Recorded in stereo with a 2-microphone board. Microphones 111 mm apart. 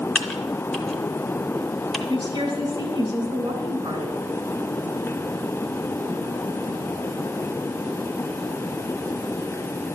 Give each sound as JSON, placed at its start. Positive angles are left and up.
{"t": 0.1, "sound": "typing on a keyboard", "side_deg": 5, "distance_m": 0.9}
{"t": 2.1, "sound": "a woman speaking", "side_deg": -35, "distance_m": 2.5}